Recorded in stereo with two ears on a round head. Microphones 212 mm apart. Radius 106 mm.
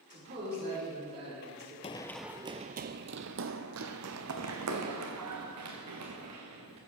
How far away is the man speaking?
About 5.5 m.